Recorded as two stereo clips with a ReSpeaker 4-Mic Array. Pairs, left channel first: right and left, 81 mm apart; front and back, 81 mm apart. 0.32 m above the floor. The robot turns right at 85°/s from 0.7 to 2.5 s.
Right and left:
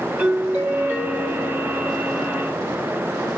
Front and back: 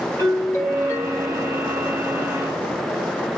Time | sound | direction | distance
0.2 | a doorbell | 25° left | 1.8 m